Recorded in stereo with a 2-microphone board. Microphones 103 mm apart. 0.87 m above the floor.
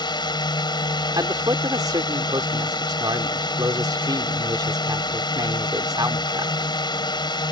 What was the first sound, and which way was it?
A drone, 45° left (ahead or behind).